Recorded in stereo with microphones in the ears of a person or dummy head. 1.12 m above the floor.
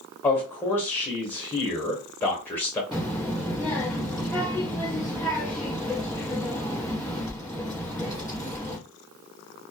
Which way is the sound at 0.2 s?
10° left (ahead or behind).